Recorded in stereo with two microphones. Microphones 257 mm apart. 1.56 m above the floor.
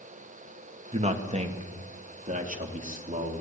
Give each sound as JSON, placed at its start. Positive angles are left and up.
{"t": 0.9, "sound": "a man speaking", "side_deg": -25, "distance_m": 2.5}